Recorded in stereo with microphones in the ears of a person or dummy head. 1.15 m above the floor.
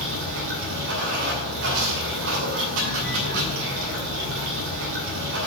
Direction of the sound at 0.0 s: 80° right.